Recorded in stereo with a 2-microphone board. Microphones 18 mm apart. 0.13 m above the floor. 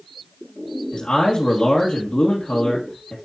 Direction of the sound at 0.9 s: 65° left (ahead or behind).